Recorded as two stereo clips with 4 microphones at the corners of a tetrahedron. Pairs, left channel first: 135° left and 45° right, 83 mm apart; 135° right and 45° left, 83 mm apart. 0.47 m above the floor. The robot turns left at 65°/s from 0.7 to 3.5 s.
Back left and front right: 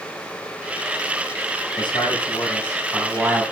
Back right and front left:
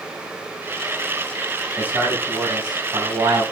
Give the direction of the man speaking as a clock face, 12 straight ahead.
8 o'clock.